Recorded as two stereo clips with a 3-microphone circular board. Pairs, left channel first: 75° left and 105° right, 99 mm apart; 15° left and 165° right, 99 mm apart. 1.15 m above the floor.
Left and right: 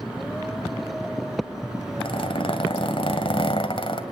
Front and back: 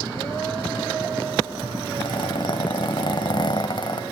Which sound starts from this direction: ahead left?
A zipper, at 2.0 s.